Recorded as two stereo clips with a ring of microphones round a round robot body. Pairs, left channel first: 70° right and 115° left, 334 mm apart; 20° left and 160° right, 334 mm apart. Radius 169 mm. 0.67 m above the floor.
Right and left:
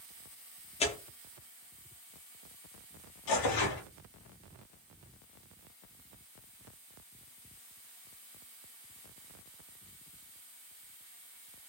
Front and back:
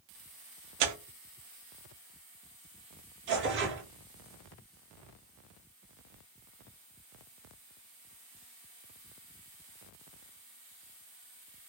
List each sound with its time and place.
0.8 s tearing paper: 140° right, 0.5 m
3.3 s tearing paper: 100° right, 0.6 m